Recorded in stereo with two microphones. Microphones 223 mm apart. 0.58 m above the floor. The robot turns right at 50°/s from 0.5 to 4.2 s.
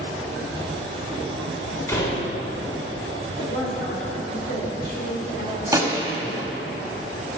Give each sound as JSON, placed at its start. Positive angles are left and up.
{"t": 1.9, "sound": "a door slam", "side_deg": 10, "distance_m": 1.6}
{"t": 3.4, "sound": "a woman speaking", "azimuth_deg": 85, "distance_m": 2.0}
{"t": 5.7, "sound": "a gunshot", "side_deg": -15, "distance_m": 1.0}